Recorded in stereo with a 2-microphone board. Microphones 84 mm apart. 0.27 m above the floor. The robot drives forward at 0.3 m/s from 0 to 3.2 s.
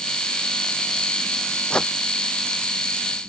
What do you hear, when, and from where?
1.7 s a whoosh: 10° left (ahead or behind)